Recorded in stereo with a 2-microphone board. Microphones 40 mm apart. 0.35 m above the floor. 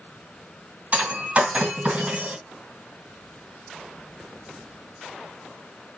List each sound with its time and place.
0.9 s breaking glass: 35° right (ahead or behind), 1.8 m